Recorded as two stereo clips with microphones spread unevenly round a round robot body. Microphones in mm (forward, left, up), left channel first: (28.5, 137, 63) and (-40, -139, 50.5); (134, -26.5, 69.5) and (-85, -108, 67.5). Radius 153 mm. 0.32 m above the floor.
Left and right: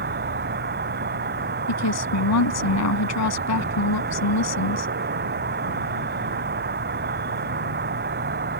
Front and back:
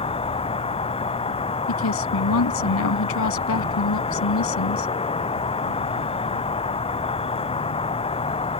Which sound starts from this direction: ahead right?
An insect, at 0.0 s.